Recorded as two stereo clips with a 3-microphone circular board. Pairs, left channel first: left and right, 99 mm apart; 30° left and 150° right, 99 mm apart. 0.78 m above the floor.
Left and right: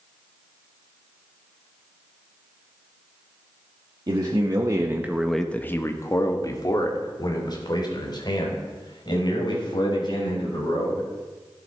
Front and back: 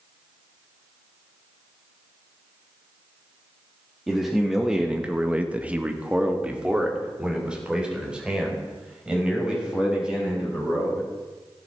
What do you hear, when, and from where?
4.1 s a man speaking: 60° right, 1.7 m; by 11.0 s 130° left, 7.5 m